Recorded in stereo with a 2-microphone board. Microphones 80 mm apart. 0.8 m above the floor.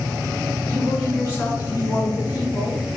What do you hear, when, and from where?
0.7 s a woman speaking: 30° left (ahead or behind), 1.8 m; by 3.0 s 60° left (ahead or behind), 2.5 m